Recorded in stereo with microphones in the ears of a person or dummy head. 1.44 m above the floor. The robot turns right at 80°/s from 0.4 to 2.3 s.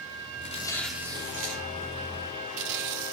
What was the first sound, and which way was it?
Tearing paper, 140° left.